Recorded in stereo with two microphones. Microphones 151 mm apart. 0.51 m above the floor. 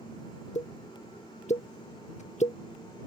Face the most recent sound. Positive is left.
turn(degrees=50)  # may be behind; listen again after turning